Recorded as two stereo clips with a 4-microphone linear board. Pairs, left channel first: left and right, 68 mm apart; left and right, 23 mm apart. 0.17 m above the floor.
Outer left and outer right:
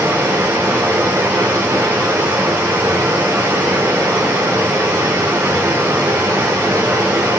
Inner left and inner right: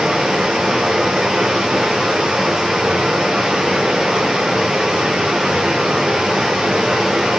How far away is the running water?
About 4 m.